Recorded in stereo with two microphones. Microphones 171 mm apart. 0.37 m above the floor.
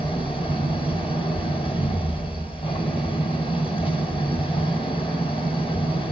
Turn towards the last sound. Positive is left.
turn(degrees=30)  # may be behind; listen again after turning